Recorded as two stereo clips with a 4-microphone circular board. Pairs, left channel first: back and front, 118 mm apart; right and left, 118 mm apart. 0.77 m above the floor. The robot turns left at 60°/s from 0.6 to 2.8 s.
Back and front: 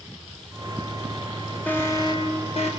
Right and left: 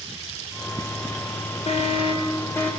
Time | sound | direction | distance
1.7 | an alarm | 105° right | 3.5 m